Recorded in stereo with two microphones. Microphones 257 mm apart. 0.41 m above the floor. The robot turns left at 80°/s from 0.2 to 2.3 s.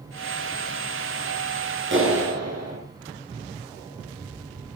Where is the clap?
50° right, 5.5 m; by 2.8 s 80° right, 5.5 m.